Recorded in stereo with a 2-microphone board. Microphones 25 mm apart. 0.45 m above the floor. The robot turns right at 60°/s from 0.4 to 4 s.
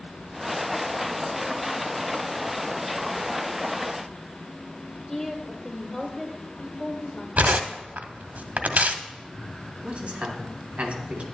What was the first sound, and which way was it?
A woman speaking, 25° left (ahead or behind).